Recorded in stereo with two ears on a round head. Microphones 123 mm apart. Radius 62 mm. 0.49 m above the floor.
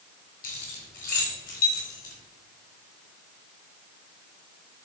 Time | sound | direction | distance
0.4 | keys jangling | 60° left (ahead or behind) | 3 m